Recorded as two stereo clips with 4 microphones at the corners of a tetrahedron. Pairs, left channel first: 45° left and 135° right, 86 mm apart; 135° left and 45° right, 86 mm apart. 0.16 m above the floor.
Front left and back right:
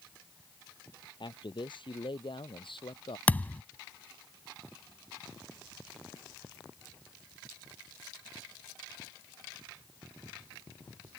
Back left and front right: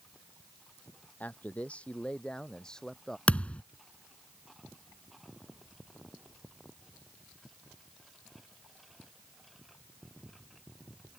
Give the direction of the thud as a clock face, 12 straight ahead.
9 o'clock.